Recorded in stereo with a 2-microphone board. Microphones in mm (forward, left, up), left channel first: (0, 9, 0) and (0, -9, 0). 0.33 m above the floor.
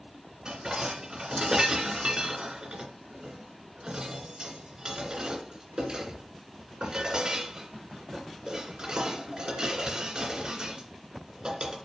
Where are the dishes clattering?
50° right (ahead or behind), 2.5 m.